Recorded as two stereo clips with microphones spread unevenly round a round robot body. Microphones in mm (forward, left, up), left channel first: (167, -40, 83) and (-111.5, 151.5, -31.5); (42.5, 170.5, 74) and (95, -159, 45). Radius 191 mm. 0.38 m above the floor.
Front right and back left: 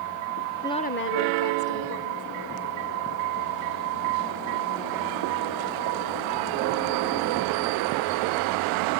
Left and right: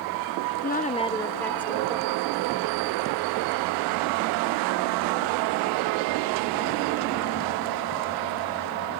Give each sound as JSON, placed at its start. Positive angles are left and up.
{"t": 0.6, "sound": "a woman speaking", "azimuth_deg": 90}